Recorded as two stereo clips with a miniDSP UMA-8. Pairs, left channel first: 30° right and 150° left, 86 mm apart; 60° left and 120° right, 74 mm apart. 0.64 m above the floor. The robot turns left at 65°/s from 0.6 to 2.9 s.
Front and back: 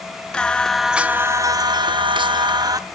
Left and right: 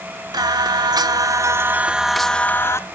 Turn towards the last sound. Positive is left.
turn(degrees=105)